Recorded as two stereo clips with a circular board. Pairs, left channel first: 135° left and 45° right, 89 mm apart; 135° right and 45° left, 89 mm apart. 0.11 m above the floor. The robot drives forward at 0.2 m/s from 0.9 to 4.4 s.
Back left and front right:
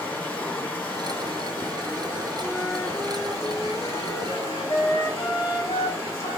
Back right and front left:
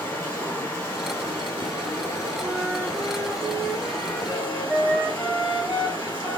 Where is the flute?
125° left, 1.2 m; by 6.4 s 140° left, 1.5 m.